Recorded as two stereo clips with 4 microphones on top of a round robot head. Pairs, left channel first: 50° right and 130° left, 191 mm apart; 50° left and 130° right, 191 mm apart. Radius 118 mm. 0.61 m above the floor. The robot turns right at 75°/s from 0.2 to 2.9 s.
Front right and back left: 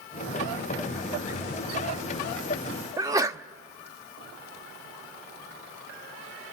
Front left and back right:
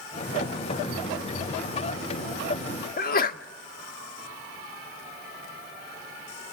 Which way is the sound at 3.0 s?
60° left.